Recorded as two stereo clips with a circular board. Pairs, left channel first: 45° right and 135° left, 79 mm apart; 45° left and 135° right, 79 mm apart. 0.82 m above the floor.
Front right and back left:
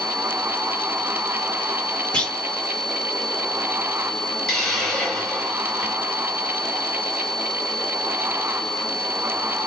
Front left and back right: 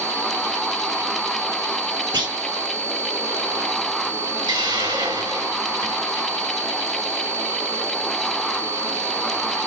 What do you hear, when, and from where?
2.1 s a clunk: 120° right, 2 m
4.5 s a hiss: 135° right, 4.5 m